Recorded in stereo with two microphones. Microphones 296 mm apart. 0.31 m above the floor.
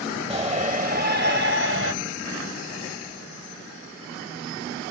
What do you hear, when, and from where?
0.3 s a shout: 20° right (ahead or behind), 1.5 m; by 1.9 s 45° right (ahead or behind), 1.8 m